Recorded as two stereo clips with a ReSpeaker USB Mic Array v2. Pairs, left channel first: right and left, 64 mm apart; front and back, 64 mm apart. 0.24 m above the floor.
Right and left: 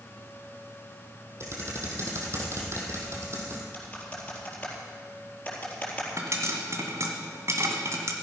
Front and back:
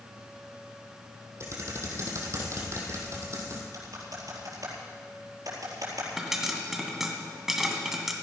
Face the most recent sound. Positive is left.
turn(degrees=95)